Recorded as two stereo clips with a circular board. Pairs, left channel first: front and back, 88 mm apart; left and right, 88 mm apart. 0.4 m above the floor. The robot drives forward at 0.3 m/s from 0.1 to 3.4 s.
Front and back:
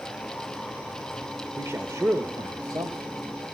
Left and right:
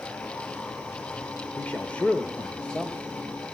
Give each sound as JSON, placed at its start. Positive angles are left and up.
{"t": 1.6, "sound": "a man speaking", "azimuth_deg": 150, "distance_m": 0.8}